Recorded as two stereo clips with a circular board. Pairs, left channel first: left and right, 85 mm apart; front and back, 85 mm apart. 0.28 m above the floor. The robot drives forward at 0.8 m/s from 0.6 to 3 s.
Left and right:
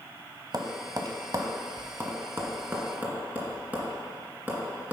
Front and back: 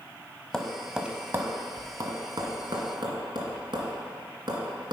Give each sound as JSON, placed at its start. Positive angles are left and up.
{"t": 0.5, "sound": "tapping", "azimuth_deg": -80, "distance_m": 0.9}